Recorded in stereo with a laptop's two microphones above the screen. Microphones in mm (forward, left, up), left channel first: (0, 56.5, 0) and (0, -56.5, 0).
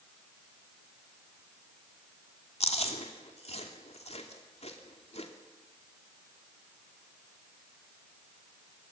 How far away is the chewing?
About 2.5 m.